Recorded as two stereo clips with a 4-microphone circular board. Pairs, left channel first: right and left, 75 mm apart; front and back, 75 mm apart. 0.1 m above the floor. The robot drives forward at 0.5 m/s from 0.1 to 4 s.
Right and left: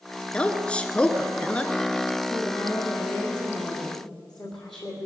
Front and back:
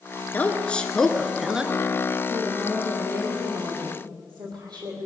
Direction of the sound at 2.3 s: 170° right.